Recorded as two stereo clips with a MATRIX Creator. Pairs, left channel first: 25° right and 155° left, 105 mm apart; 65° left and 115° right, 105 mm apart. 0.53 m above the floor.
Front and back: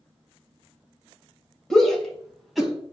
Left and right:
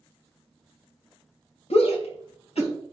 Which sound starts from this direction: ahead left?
A shout, at 1.7 s.